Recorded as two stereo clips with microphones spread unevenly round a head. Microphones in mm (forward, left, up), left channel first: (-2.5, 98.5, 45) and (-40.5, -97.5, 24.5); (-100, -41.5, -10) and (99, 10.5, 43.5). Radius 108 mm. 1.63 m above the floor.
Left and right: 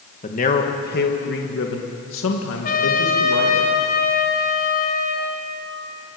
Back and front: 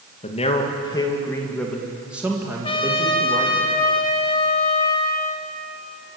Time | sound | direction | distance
0.2 | a man speaking | 135° left | 2.5 m
2.6 | a trumpet | 120° left | 4 m